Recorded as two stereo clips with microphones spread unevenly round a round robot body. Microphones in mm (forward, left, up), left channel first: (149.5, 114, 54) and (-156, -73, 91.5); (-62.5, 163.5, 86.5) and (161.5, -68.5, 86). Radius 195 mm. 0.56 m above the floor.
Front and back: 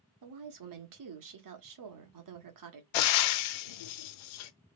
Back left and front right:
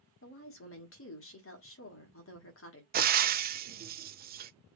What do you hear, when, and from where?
0.2 s a woman speaking: straight behind, 1.5 m
2.9 s frying: 20° left, 0.6 m